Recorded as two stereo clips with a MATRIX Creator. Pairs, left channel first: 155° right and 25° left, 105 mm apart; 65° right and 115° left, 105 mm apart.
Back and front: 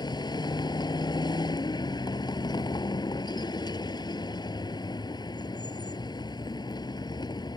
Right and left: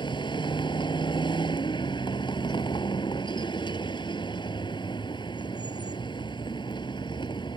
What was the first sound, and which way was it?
A vehicle, 110° right.